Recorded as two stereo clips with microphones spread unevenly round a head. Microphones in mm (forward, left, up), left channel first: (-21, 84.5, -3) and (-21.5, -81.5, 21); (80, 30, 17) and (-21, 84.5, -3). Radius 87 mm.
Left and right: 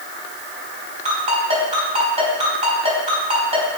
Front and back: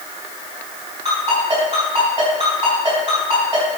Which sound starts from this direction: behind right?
A ringtone, at 1.1 s.